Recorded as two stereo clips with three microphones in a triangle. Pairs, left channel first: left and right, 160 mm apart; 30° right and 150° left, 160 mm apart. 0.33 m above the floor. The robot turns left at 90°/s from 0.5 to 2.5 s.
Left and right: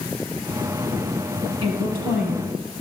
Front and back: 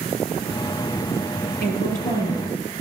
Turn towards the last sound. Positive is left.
turn(degrees=-115)